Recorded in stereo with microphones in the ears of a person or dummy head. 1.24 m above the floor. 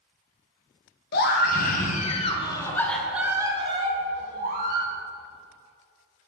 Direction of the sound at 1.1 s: 60° left (ahead or behind).